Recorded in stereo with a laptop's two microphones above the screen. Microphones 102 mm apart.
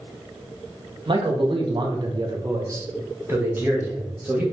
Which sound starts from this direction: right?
A man speaking, at 1.1 s.